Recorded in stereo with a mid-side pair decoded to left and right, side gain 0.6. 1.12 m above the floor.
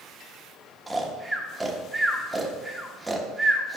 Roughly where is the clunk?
I don't hear a clunk.